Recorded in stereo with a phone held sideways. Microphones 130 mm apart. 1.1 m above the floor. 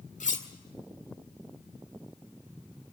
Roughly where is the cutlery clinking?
Left.